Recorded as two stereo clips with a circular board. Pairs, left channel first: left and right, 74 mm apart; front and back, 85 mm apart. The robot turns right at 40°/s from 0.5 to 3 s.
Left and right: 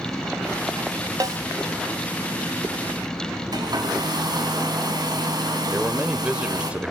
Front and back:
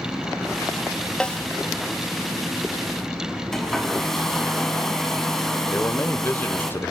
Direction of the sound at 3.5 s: 85° right.